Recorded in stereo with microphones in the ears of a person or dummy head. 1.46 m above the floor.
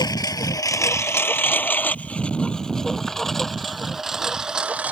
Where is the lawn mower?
20° left (ahead or behind); by 4.9 s 5° right (ahead or behind).